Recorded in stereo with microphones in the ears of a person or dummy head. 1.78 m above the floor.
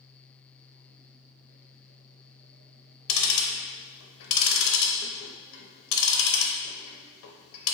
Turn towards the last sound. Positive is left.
turn(degrees=85)